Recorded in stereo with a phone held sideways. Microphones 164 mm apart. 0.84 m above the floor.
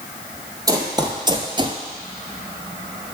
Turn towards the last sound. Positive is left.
turn(degrees=-30)  # may be behind; listen again after turning